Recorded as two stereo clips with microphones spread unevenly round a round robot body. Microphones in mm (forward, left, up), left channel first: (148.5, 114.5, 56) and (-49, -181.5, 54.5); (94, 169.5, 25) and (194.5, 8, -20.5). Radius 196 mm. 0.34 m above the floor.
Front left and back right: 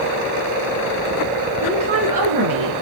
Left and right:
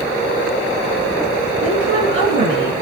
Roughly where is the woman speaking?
Right.